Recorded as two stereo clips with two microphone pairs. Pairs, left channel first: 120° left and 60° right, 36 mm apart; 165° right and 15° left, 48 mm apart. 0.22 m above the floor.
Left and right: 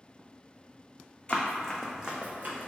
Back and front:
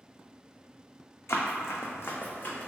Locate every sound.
1.3 s running footsteps: 175° left, 0.6 m; by 2.7 s 100° right, 0.7 m